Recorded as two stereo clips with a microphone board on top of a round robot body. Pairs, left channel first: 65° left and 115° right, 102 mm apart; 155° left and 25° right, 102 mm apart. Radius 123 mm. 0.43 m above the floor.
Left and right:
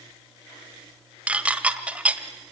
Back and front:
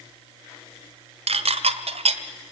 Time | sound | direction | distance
1.3 | dishes clattering | 35° right | 1.4 m